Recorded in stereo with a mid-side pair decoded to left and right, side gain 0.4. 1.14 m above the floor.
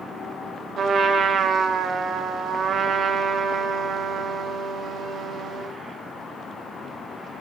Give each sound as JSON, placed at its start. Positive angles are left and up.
{"t": 0.8, "sound": "a trumpet", "azimuth_deg": -65, "distance_m": 2.0}